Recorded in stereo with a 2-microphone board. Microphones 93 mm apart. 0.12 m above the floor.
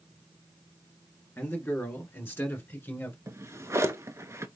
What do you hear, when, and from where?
1.4 s a man speaking: 25° left (ahead or behind), 1.7 m
3.3 s a drawer: 30° right (ahead or behind), 0.7 m